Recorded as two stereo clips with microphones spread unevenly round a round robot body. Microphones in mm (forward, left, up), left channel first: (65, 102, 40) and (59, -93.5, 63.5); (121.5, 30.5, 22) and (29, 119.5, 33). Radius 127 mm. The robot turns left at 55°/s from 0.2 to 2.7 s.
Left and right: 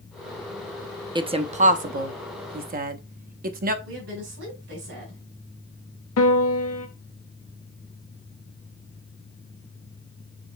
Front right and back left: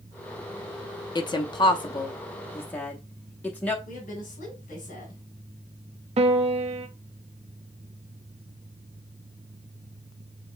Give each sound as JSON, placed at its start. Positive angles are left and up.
{"t": 1.1, "sound": "a woman speaking", "azimuth_deg": -25, "distance_m": 0.7}
{"t": 3.9, "sound": "a woman speaking", "azimuth_deg": -90, "distance_m": 2.5}
{"t": 6.2, "sound": "a piano", "azimuth_deg": 115, "distance_m": 0.6}